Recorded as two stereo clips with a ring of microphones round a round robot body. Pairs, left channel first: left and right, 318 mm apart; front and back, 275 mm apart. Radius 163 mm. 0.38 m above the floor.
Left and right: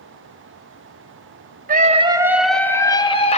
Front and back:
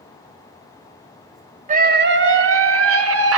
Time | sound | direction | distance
1.7 | a scream | 135° right | 1.1 m